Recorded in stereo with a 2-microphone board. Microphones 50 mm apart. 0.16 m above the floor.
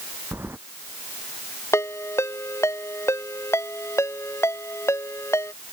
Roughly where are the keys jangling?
Right.